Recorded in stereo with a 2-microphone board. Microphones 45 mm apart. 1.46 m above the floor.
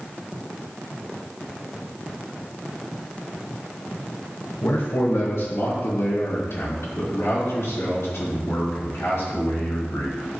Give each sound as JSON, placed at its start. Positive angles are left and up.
{"t": 4.6, "sound": "a man speaking", "side_deg": 70, "distance_m": 1.3}